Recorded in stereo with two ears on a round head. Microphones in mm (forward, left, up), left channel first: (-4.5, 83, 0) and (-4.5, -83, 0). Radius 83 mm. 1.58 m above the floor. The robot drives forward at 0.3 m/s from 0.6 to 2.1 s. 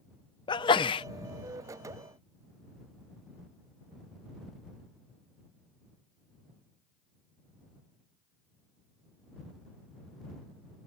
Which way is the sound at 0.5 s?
25° left (ahead or behind).